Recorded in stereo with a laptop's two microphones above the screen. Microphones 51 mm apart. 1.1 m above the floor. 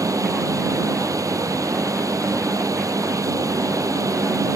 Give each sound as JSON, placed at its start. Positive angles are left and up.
{"t": 0.0, "sound": "a fan", "side_deg": -85}